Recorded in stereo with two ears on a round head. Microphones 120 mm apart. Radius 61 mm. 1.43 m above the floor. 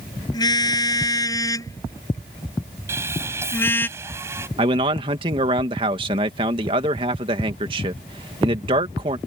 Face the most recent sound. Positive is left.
turn(degrees=-40)  # may be behind; listen again after turning